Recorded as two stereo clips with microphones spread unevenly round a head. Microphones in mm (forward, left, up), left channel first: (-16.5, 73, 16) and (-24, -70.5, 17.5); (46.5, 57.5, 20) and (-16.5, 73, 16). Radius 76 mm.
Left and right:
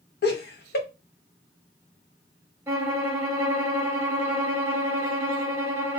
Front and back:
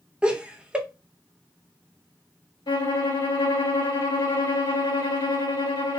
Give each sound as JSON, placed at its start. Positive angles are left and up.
{"t": 0.2, "sound": "laughter", "azimuth_deg": 90, "distance_m": 1.2}
{"t": 2.7, "sound": "a violin", "azimuth_deg": -20, "distance_m": 1.2}